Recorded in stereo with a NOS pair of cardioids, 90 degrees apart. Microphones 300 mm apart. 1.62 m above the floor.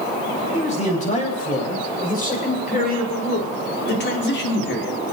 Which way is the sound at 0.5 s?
25° left.